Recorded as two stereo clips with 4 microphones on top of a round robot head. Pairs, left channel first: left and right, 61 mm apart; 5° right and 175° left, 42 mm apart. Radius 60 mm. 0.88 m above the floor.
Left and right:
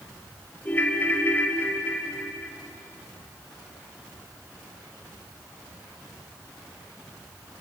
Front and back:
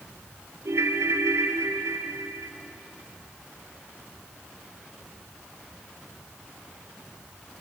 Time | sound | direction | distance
0.7 | a ringtone | 155° left | 1.8 m